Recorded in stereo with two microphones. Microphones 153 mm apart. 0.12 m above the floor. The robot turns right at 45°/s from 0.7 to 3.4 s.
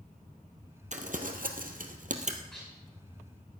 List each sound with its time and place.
0.9 s crumpling: 55° right (ahead or behind), 1.5 m; by 2.4 s 50° right (ahead or behind), 1.5 m
2.5 s dishes clattering: 5° left (ahead or behind), 8.5 m; by 2.7 s 5° right (ahead or behind), 8.5 m